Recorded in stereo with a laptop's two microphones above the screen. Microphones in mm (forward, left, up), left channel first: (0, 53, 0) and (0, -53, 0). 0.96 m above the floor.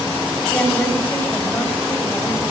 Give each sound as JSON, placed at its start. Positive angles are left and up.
{"t": 0.5, "sound": "a woman speaking", "side_deg": 15, "distance_m": 5.5}